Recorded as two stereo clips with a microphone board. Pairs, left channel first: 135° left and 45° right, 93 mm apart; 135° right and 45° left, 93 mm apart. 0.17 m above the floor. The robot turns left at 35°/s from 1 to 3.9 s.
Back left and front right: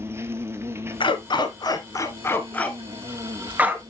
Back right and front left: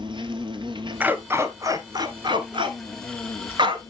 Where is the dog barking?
120° left, 1.0 m; by 3.8 s 20° left, 1.0 m.